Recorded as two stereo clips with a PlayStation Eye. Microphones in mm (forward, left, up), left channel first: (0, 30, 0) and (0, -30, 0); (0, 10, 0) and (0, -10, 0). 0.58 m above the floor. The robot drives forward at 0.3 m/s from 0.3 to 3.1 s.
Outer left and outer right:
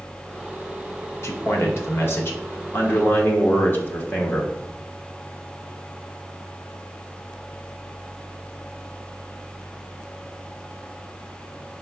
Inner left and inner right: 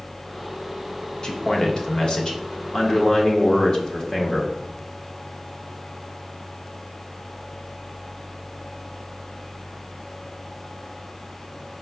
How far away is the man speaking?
About 0.8 m.